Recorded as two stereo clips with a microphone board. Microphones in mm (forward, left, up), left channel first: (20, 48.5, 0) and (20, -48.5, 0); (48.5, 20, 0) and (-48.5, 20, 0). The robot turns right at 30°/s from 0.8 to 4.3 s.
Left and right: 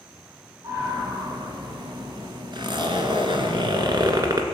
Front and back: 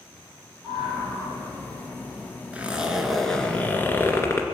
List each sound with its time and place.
0.6 s a scream: 150° right, 4.5 m; by 2.3 s 105° right, 4.5 m
2.5 s a zipper: 110° right, 1.8 m; by 4.5 s 55° right, 1.8 m